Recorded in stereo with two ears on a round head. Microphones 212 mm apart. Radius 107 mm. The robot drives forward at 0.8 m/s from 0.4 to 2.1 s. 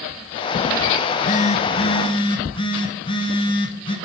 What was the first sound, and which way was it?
A phone buzzing, 40° left (ahead or behind).